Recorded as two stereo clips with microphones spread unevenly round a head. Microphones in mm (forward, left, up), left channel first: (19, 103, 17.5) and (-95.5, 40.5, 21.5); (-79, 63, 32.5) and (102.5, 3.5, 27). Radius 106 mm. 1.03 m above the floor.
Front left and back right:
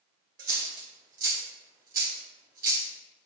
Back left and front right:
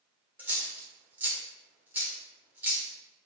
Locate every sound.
0.4 s a dropped coin: 100° right, 1.5 m